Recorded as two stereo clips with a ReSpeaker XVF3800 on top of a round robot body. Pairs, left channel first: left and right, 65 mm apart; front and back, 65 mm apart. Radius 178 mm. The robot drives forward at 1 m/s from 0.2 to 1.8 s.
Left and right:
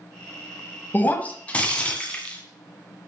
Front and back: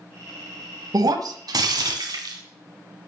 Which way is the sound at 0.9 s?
150° left.